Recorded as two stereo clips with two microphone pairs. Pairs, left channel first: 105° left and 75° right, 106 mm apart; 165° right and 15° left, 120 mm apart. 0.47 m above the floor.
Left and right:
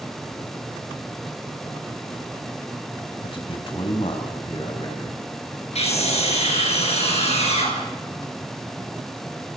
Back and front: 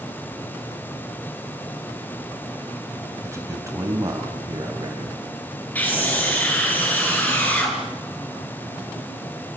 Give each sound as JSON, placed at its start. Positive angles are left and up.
{"t": 3.2, "sound": "a man speaking", "azimuth_deg": 80, "distance_m": 3.0}
{"t": 5.8, "sound": "a scream", "azimuth_deg": 120, "distance_m": 8.0}